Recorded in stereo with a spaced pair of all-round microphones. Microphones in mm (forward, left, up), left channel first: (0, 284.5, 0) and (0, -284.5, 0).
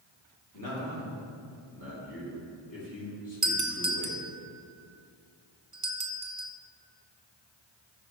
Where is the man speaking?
35° left (ahead or behind), 3 m.